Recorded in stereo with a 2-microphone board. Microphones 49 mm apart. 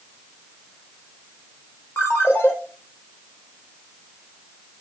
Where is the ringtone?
45° left (ahead or behind), 4 m.